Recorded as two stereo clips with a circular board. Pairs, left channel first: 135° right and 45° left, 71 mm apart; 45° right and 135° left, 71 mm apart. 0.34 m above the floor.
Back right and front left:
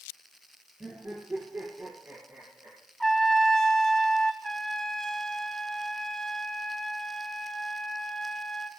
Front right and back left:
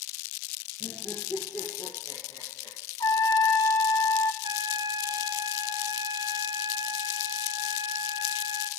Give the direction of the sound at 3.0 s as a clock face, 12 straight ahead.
2 o'clock.